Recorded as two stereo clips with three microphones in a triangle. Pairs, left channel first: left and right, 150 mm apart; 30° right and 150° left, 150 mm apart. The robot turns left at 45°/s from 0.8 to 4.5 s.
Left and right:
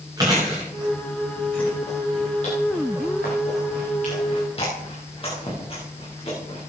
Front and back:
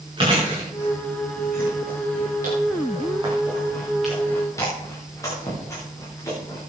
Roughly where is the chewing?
Behind right.